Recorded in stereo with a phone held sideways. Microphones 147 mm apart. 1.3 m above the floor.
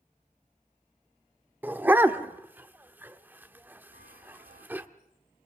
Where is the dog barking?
15° right (ahead or behind), 1.1 m.